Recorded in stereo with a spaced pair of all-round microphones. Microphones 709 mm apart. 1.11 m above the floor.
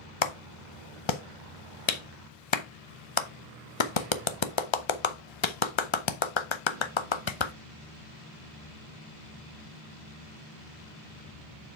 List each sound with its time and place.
0.2 s a clap: 40° left (ahead or behind), 0.7 m